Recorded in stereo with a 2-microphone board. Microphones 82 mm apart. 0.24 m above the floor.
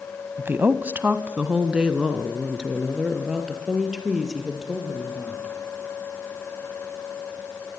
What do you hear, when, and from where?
0.4 s a woman speaking: 30° right (ahead or behind), 1.2 m; by 5.5 s 5° right (ahead or behind), 6.5 m